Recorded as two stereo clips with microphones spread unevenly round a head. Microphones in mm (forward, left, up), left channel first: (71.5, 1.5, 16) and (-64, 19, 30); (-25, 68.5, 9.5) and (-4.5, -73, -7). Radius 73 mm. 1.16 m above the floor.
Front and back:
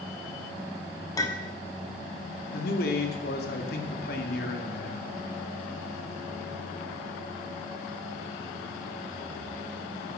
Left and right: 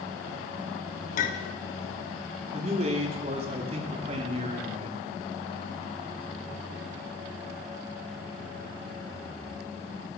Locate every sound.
1.2 s a clink: 60° left, 1.2 m
2.5 s a man speaking: 30° right, 2.0 m